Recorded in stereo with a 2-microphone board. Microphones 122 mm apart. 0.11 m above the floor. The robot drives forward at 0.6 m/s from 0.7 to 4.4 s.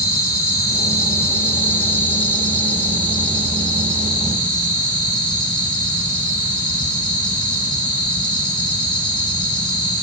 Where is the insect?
30° left (ahead or behind), 1.4 m; by 10.0 s 10° left (ahead or behind), 3.5 m.